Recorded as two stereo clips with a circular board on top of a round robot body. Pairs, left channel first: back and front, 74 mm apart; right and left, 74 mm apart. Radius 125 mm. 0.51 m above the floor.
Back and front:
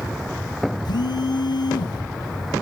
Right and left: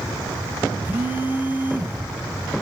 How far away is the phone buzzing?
About 1.0 m.